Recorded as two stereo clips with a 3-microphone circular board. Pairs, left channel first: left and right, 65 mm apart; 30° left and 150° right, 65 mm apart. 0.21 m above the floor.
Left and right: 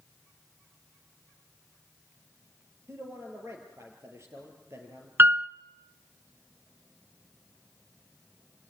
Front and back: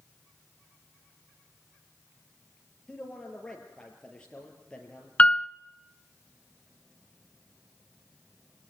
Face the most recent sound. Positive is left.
turn(degrees=-40)